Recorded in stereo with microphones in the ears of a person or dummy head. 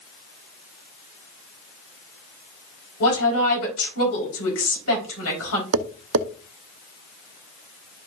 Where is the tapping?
55° right (ahead or behind), 0.7 m.